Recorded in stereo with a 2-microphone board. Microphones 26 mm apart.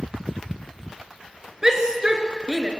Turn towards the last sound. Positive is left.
turn(degrees=-25)  # may be behind; listen again after turning